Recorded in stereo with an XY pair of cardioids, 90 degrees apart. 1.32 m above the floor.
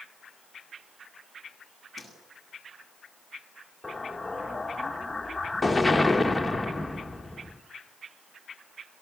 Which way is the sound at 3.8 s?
10° left.